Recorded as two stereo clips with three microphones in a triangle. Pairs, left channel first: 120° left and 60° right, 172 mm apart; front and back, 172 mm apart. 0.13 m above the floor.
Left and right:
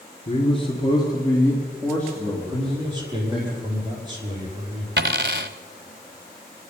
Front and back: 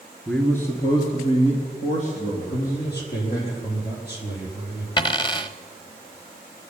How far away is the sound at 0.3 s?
About 2 m.